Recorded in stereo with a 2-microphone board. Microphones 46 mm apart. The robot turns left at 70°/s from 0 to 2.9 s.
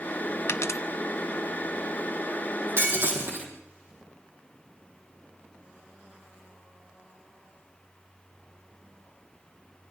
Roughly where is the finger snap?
No finger snap in this recording.